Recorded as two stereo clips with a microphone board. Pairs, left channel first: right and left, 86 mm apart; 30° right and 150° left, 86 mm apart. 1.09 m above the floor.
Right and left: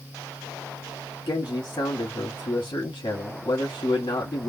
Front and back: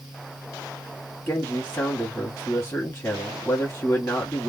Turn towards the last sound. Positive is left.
turn(degrees=-85)